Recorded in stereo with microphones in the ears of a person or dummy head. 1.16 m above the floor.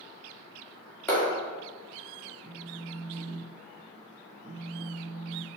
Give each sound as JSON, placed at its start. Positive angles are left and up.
{"t": 1.1, "sound": "a clap", "side_deg": 15, "distance_m": 3.0}
{"t": 2.4, "sound": "a phone buzzing", "side_deg": -35, "distance_m": 0.5}